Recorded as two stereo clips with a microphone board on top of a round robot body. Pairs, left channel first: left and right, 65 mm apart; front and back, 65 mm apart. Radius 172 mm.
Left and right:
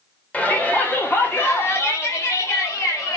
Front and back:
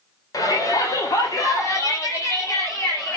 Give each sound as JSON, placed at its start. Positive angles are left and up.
{"t": 0.3, "sound": "a shout", "azimuth_deg": 25, "distance_m": 3.5}